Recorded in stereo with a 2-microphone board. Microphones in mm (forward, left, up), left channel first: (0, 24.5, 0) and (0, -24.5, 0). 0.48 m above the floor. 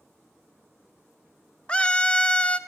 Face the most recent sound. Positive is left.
turn(degrees=20)  # may be behind; listen again after turning